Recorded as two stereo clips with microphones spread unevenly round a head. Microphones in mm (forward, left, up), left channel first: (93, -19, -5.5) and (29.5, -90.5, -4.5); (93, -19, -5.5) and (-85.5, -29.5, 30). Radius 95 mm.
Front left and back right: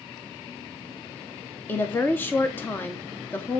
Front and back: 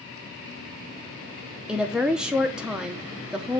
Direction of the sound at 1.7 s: 75° left.